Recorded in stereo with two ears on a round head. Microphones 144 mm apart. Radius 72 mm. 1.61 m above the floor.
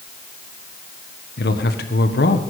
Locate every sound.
1.4 s a man speaking: 70° left (ahead or behind), 1.5 m